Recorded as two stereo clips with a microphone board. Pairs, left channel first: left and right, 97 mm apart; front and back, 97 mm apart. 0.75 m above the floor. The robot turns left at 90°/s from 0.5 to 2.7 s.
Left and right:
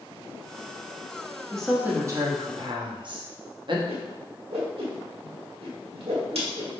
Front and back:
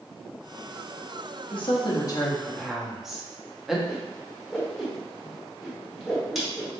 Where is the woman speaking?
15° left, 0.9 m; by 3.8 s 95° right, 0.9 m.